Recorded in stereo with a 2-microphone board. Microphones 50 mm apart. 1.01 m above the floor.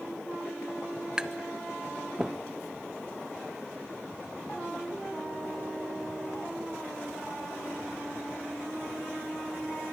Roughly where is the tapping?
Centre.